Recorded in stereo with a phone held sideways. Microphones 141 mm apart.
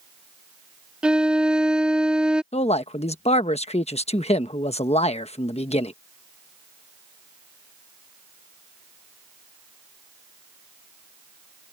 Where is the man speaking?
50° left (ahead or behind).